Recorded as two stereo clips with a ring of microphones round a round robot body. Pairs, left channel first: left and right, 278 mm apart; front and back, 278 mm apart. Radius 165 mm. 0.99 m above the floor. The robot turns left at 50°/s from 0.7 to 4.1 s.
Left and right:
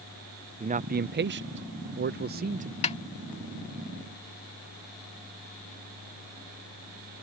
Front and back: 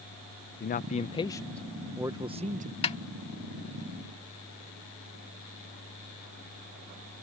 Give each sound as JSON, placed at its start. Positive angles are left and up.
{"t": 0.6, "sound": "a man speaking", "azimuth_deg": -40}
{"t": 2.8, "sound": "a snare drum", "azimuth_deg": 50}